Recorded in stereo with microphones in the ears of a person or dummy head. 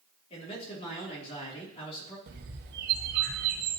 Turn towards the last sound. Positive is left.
turn(degrees=-55)  # may be behind; listen again after turning